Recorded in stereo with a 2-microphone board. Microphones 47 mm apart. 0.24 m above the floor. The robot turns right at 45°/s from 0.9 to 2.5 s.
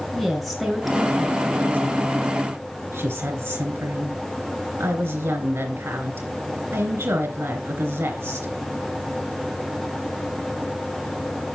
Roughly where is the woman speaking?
Behind.